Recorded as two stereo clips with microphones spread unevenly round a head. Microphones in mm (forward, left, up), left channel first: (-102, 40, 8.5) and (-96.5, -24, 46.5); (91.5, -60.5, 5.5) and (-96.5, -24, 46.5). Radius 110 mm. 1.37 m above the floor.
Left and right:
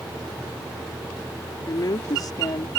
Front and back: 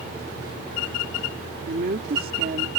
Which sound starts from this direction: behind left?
A woman speaking, at 1.7 s.